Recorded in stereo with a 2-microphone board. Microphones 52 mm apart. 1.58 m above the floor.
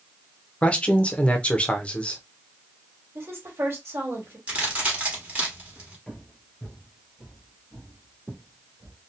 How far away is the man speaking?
About 0.5 m.